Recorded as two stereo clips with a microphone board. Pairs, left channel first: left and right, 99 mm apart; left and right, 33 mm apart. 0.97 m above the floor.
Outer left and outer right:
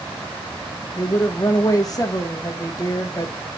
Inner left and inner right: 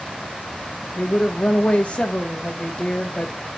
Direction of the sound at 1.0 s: 40° left (ahead or behind).